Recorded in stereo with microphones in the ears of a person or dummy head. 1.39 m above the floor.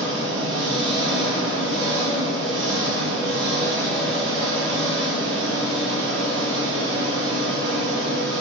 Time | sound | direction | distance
0.0 | an engine running | 75° right (ahead or behind) | 1.2 m